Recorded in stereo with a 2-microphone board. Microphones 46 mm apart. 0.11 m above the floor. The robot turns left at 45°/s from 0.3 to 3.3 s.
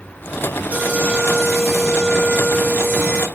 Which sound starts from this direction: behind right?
An alarm, at 0.7 s.